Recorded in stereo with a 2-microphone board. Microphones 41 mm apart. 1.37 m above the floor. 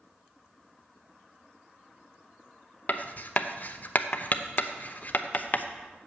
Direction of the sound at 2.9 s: 40° left (ahead or behind).